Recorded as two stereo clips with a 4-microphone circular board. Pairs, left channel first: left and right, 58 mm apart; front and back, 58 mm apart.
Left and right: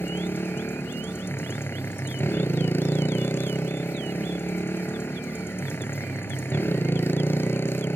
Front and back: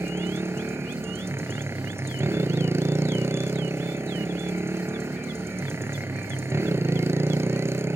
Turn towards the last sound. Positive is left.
turn(degrees=140)